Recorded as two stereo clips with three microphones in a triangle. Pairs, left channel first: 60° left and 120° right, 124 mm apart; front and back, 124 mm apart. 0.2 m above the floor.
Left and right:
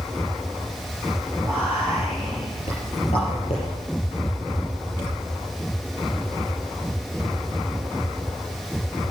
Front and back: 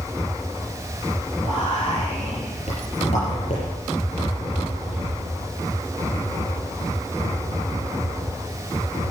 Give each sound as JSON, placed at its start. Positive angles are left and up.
{"t": 1.4, "sound": "whispering", "azimuth_deg": 25, "distance_m": 6.5}